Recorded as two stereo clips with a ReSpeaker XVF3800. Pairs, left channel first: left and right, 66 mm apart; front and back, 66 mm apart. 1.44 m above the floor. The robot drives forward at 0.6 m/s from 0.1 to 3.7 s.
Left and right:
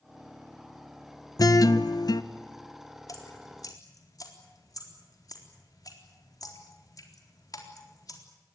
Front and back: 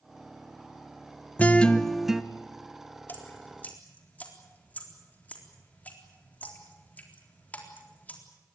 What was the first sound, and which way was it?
A guitar, 65° left.